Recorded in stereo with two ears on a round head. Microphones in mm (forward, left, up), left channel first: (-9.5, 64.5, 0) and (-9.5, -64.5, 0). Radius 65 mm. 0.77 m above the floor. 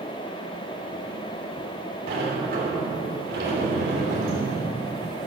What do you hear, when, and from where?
2.1 s a sliding door: 70° right (ahead or behind), 3 m